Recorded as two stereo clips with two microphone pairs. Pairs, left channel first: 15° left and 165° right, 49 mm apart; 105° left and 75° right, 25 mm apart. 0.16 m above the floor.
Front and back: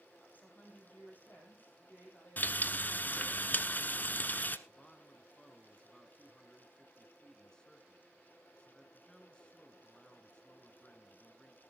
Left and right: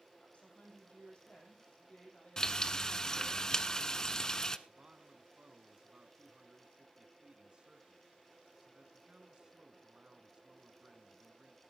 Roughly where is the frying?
Ahead left.